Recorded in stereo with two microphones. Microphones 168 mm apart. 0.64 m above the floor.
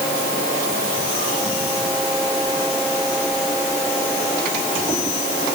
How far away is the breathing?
No breathing in this recording.